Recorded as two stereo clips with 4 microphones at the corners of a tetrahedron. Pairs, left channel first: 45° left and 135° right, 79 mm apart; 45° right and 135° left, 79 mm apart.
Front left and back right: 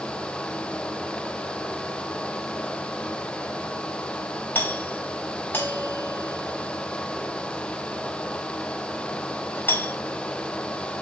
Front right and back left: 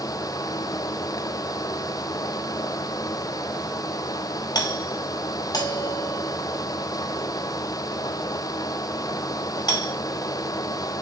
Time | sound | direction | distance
4.5 | a doorbell | 20° right | 5 m